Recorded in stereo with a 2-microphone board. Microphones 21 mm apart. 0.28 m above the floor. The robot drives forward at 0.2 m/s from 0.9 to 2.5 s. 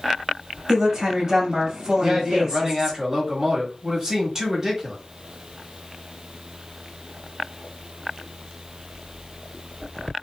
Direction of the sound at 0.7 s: 30° right (ahead or behind).